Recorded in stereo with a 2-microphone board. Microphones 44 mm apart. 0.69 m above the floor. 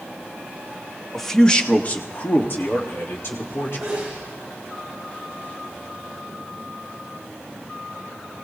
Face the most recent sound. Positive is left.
turn(degrees=-10)  # may be behind; listen again after turning